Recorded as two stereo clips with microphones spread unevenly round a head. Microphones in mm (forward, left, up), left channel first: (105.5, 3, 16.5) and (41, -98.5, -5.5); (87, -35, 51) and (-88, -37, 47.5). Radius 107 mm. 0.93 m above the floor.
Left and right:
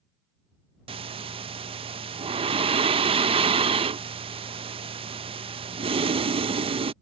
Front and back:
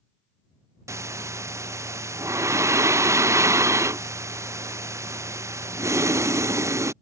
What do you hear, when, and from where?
0.9 s breathing: 105° right